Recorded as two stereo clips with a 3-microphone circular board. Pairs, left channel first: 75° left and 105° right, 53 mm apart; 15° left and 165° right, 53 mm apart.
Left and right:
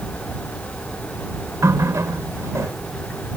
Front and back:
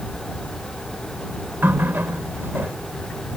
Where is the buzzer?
No buzzer in this recording.